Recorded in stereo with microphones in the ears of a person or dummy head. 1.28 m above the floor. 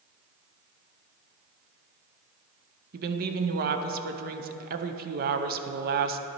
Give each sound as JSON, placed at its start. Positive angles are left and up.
{"t": 2.9, "sound": "a woman speaking", "side_deg": -40, "distance_m": 0.6}